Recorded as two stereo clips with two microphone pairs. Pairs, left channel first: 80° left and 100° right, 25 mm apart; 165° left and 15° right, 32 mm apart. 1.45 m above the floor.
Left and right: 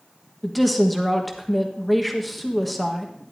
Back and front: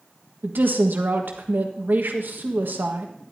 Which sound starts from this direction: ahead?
A woman speaking, at 0.4 s.